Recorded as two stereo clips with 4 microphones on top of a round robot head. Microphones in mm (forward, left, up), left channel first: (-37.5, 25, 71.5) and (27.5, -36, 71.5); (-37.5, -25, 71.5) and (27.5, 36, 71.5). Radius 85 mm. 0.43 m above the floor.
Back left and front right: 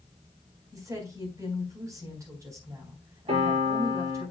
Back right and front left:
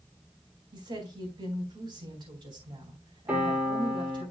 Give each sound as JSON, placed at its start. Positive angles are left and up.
{"t": 0.7, "sound": "a woman speaking", "azimuth_deg": 10, "distance_m": 4.0}
{"t": 3.3, "sound": "a piano", "azimuth_deg": -30, "distance_m": 6.0}